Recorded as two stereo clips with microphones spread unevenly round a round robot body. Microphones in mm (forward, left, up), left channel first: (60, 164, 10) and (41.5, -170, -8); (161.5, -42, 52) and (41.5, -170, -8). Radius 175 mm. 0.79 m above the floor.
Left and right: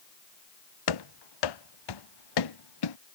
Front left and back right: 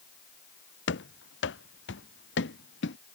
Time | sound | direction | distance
0.9 | running footsteps | 80° left | ?